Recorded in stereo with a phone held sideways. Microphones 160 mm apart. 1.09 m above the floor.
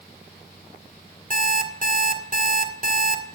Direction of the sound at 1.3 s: 50° right (ahead or behind).